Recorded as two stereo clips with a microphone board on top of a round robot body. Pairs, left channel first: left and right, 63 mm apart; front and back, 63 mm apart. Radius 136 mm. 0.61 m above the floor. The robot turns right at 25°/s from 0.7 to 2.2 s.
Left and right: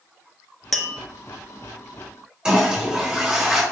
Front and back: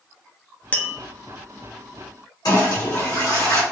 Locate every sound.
0.7 s tapping: 10° left, 0.7 m; by 1.0 s 15° left, 0.7 m
2.5 s a toilet flushing: 15° right, 1.7 m